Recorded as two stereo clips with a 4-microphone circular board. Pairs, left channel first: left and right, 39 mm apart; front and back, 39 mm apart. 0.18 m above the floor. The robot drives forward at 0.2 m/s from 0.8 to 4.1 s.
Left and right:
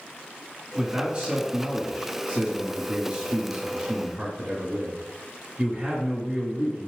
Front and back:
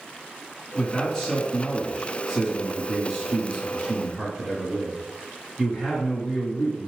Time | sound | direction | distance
0.8 | a man speaking | 70° right | 1.9 m